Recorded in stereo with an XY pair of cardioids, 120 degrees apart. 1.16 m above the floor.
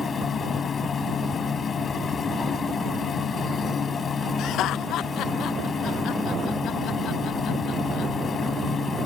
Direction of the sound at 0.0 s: 35° left.